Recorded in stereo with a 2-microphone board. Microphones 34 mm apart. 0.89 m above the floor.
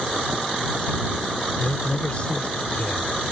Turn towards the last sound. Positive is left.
turn(degrees=40)  # may be behind; listen again after turning